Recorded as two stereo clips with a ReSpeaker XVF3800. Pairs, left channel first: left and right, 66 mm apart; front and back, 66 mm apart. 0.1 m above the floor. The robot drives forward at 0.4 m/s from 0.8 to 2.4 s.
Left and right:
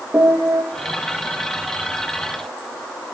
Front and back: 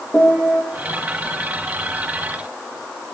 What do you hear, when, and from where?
0.1 s a piano: 45° right, 3 m